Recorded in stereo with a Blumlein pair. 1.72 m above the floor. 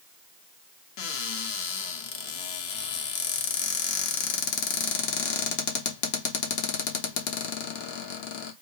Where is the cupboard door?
45° left, 0.6 m.